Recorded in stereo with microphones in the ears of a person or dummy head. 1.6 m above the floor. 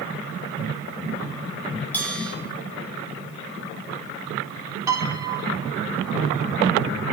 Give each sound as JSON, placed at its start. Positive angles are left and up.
{"t": 1.9, "sound": "a bell", "side_deg": 10, "distance_m": 6.5}
{"t": 4.9, "sound": "a piano", "side_deg": -20, "distance_m": 2.5}